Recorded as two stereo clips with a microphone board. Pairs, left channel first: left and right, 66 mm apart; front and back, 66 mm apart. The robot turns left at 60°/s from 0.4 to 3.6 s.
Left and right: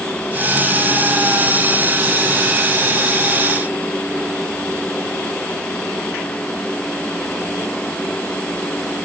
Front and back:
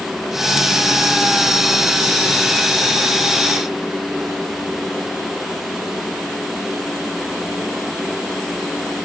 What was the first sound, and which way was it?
Only background noise.